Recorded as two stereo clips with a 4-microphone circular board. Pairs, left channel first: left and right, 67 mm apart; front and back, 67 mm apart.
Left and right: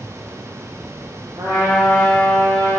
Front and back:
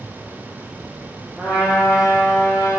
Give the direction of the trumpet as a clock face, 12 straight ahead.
3 o'clock.